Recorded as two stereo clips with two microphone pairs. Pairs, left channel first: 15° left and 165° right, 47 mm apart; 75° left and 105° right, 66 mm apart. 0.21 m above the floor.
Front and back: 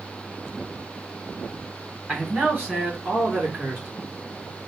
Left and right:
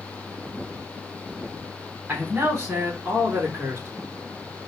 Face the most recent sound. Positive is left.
turn(degrees=-155)